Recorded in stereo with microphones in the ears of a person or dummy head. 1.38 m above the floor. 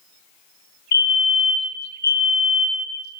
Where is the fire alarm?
45° left (ahead or behind), 2 m.